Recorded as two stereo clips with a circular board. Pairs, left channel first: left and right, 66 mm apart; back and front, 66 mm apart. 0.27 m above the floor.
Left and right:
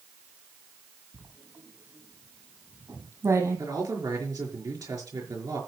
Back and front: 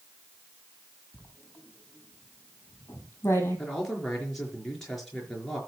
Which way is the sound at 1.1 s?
130° right.